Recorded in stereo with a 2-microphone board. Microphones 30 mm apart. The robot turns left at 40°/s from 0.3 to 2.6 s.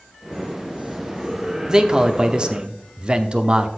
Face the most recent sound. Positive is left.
turn(degrees=-85)